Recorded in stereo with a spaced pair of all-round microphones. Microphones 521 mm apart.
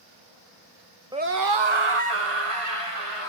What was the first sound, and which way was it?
A scream, 10° right (ahead or behind).